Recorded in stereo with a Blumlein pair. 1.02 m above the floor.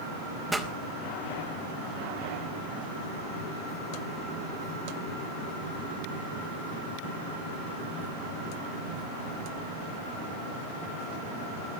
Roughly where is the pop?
Ahead.